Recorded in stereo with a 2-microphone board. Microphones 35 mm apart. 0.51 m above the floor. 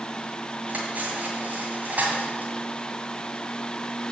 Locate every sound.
0.7 s cutlery clinking: 50° right (ahead or behind), 1.8 m